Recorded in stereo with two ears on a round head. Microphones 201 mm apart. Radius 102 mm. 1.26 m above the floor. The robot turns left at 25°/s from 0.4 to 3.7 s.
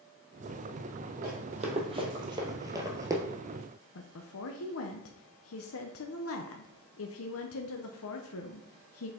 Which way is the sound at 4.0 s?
65° left (ahead or behind).